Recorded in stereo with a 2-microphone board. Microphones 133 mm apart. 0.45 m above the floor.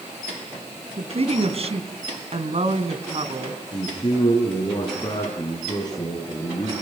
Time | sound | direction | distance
1.0 | a woman speaking | 50° right (ahead or behind) | 3 m
3.7 | a man speaking | 30° left (ahead or behind) | 5.5 m